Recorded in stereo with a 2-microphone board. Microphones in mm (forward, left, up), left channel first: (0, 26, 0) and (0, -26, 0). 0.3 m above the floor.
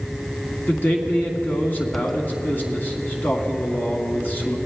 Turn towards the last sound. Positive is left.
turn(degrees=35)  # may be behind; listen again after turning